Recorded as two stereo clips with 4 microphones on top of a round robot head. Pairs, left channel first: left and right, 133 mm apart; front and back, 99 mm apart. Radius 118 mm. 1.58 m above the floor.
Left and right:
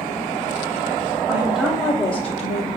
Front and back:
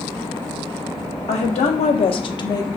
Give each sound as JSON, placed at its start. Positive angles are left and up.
{"t": 1.3, "sound": "a woman speaking", "azimuth_deg": -20, "distance_m": 0.6}